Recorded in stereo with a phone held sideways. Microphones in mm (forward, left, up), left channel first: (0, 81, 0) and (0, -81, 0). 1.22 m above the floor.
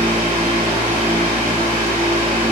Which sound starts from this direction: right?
A fan, at 0.0 s.